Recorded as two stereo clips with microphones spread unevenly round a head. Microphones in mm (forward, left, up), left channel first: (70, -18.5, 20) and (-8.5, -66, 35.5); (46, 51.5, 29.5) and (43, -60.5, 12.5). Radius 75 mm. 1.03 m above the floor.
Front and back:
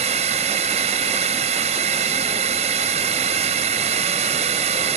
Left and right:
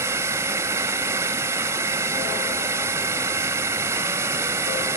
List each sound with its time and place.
0.0 s a drone: 165° right